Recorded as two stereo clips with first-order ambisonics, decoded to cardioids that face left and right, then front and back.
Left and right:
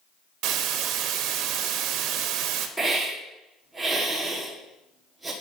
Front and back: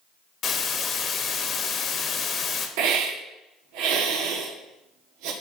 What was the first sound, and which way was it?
A hiss, 60° right.